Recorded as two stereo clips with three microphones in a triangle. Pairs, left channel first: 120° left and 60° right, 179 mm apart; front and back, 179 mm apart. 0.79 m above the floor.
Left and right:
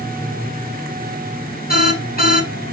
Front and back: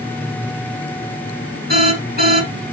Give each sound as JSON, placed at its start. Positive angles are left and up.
{"t": 1.7, "sound": "an alarm", "azimuth_deg": 155, "distance_m": 8.0}